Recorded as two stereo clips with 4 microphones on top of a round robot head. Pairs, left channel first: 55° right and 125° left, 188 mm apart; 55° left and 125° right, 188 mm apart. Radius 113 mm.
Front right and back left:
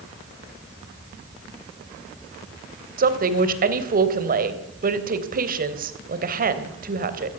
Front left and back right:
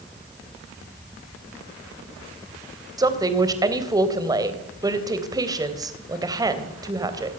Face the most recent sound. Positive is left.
turn(degrees=165)